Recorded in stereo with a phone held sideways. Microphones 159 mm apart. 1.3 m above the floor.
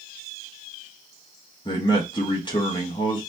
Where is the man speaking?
30° left (ahead or behind), 1.5 m.